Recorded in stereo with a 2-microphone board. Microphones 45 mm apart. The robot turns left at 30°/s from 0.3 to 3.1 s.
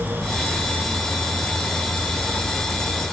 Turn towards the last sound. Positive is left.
No sound to turn to.